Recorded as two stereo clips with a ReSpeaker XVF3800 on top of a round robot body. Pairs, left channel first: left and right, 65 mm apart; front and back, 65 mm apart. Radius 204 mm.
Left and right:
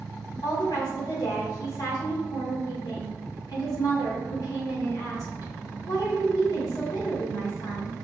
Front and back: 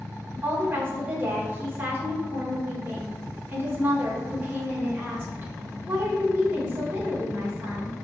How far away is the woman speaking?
About 2.5 m.